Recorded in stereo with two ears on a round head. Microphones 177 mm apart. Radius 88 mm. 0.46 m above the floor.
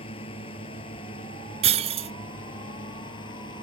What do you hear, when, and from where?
0.0 s a drone: 30° left (ahead or behind); by 3.6 s 25° left (ahead or behind)
1.6 s breaking glass: 35° right (ahead or behind)